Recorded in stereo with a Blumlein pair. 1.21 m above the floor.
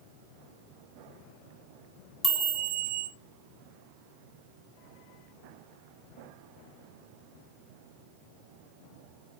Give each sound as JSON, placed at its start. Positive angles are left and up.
{"t": 2.2, "sound": "a chime", "azimuth_deg": 5, "distance_m": 1.7}